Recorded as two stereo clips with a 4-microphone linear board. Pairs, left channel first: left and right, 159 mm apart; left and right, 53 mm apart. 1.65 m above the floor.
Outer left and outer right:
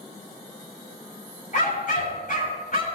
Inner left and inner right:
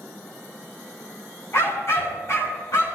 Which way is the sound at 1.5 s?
50° left (ahead or behind).